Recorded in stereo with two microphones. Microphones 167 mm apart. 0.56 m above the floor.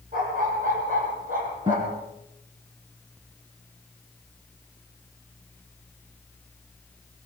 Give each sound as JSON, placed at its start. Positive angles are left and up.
{"t": 0.1, "sound": "a dog barking", "side_deg": -55, "distance_m": 8.5}
{"t": 1.7, "sound": "a guitar", "side_deg": -30, "distance_m": 4.5}